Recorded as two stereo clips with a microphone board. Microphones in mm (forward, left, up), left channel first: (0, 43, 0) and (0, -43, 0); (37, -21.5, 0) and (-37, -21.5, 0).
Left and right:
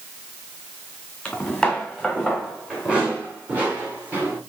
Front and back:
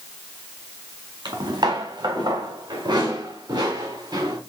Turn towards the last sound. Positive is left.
turn(degrees=-155)